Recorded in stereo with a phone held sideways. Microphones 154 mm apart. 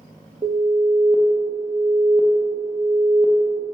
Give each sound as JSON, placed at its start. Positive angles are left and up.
{"t": 0.4, "sound": "an alarm", "side_deg": -40, "distance_m": 0.7}